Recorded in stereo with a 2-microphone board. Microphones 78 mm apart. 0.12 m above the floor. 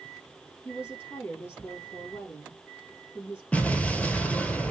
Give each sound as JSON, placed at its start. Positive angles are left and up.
{"t": 0.7, "sound": "a woman speaking", "side_deg": 30, "distance_m": 3.0}
{"t": 3.5, "sound": "an explosion", "side_deg": 15, "distance_m": 0.8}